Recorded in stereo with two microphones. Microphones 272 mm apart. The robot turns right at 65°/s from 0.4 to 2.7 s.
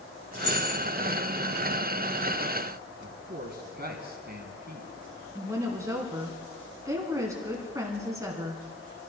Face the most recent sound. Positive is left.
turn(degrees=-10)  # may be behind; listen again after turning